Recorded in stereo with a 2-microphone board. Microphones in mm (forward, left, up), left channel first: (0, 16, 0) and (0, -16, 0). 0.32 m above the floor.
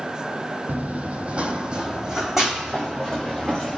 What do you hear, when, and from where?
0.7 s running footsteps: 60° right (ahead or behind), 0.6 m; by 3.8 s 5° right (ahead or behind), 1.7 m